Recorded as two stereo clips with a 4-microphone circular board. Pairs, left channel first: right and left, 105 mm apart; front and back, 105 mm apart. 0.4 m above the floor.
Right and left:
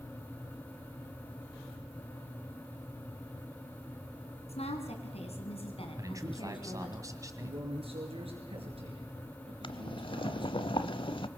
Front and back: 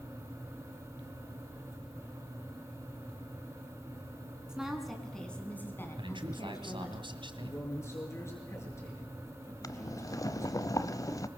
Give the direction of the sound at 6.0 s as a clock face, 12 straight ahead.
7 o'clock.